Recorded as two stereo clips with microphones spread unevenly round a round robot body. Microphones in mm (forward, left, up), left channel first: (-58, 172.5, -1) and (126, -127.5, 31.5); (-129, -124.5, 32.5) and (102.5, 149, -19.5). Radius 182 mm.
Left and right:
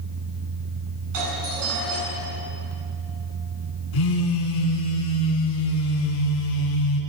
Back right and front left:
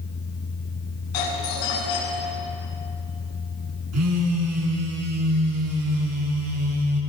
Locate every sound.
1.1 s a doorbell: 110° right, 8.5 m
3.9 s a phone buzzing: 100° left, 4.5 m